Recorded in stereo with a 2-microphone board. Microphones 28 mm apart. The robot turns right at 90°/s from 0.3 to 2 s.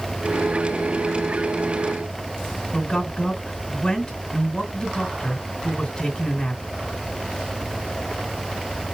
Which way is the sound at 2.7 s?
10° left (ahead or behind).